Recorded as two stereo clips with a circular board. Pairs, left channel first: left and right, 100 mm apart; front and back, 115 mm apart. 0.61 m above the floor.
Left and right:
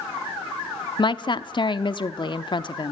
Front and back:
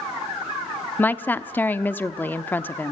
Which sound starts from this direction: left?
A woman speaking, at 1.0 s.